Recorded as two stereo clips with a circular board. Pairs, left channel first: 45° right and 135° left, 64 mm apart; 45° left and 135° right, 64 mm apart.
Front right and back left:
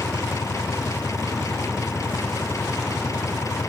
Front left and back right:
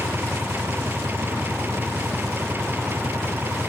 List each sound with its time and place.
0.0 s an engine running: 80° right